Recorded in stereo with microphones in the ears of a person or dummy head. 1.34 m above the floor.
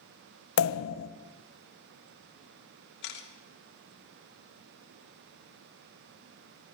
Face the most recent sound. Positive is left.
turn(degrees=65)  # may be behind; listen again after turning